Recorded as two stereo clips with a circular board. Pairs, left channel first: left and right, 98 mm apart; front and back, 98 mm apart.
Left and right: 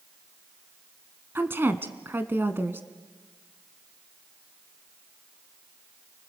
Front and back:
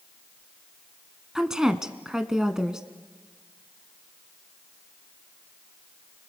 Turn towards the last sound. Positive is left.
turn(degrees=-105)